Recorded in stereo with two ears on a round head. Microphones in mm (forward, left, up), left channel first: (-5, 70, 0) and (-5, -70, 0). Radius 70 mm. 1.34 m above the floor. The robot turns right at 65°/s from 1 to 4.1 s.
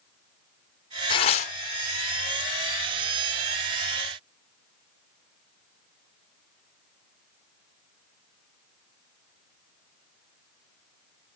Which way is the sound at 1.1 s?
30° left (ahead or behind).